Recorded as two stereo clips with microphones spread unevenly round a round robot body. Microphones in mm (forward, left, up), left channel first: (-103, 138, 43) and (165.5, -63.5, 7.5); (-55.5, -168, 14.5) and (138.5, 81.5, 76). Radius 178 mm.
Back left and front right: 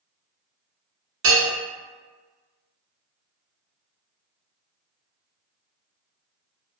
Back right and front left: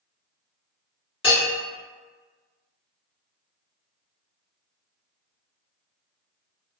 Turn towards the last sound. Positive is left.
turn(degrees=-50)